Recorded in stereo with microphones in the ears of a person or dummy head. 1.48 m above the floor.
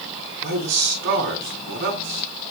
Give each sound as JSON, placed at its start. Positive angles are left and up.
{"t": 0.4, "sound": "a man speaking", "side_deg": -55, "distance_m": 7.0}